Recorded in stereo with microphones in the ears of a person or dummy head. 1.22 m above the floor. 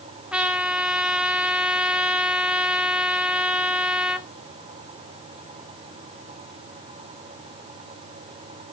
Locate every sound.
0.3 s a trumpet: 5° right (ahead or behind), 0.9 m